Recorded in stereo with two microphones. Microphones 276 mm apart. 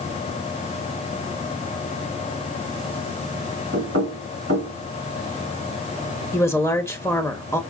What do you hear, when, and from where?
3.7 s knocking: 55° right (ahead or behind), 2 m
6.3 s a woman speaking: 10° left (ahead or behind), 0.8 m